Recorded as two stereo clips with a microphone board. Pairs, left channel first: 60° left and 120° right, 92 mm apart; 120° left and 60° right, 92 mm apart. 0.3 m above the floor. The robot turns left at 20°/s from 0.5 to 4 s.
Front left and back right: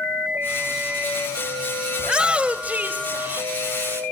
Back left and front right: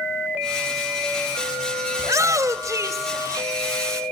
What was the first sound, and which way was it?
A shout, 45° right.